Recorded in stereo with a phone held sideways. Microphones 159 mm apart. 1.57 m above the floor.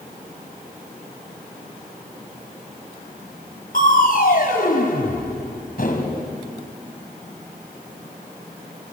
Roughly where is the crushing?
Left.